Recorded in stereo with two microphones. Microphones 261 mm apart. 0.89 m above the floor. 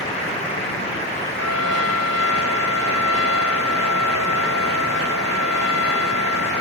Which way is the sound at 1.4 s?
85° right.